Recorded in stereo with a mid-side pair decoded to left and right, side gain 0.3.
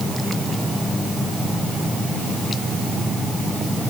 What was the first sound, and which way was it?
Only background noise.